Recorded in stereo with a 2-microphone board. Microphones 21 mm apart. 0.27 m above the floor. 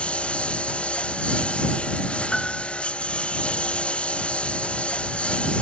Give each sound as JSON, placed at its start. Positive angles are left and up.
{"t": 0.0, "sound": "a lawn mower", "side_deg": 55}
{"t": 2.3, "sound": "a piano", "side_deg": 30}